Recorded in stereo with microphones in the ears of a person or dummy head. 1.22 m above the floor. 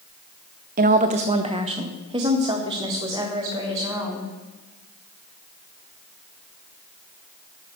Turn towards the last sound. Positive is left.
turn(degrees=-15)  # may be behind; listen again after turning